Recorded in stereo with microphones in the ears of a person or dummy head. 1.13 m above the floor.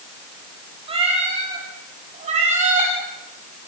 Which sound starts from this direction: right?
A cat meowing, at 0.9 s.